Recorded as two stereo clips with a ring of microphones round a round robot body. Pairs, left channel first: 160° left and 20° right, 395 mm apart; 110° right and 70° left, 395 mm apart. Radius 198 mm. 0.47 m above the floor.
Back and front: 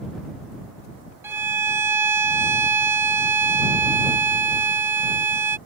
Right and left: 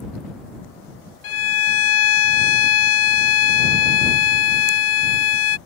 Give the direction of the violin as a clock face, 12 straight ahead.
3 o'clock.